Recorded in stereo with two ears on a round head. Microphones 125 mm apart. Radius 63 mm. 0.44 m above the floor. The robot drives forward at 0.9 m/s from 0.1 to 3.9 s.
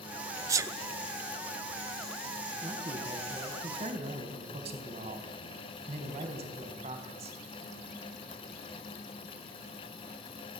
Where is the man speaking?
35° right (ahead or behind), 4.5 m; by 7.4 s 45° right (ahead or behind), 4 m.